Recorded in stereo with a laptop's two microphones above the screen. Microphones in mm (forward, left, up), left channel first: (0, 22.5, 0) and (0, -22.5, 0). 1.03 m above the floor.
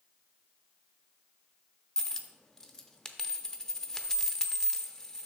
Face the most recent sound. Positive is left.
turn(degrees=15)  # may be behind; listen again after turning